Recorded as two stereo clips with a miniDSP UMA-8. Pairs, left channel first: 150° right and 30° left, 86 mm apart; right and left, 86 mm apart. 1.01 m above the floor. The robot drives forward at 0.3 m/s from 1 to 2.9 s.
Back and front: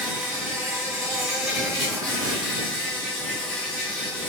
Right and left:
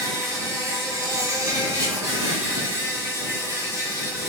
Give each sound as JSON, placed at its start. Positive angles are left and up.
{"t": 0.0, "sound": "an insect", "azimuth_deg": 105, "distance_m": 1.4}